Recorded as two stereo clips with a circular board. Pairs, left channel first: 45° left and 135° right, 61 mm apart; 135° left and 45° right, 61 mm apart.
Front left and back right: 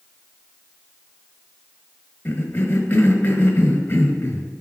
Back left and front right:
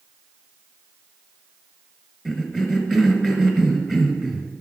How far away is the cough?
About 1.3 m.